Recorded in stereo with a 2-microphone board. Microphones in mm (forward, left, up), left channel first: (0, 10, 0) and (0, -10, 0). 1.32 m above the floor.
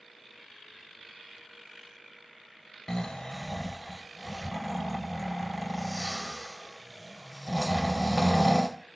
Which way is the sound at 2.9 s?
30° left (ahead or behind).